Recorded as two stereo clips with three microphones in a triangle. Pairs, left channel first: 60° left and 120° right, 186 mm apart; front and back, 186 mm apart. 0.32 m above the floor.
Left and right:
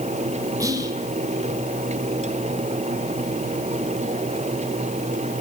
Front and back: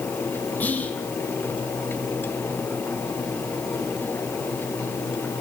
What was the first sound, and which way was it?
Whispering, 70° right.